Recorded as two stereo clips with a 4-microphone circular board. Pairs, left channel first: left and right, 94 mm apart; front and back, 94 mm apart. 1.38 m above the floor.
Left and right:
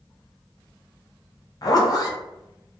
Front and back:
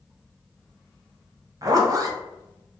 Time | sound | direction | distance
1.6 | a zipper | 135° left | 0.6 m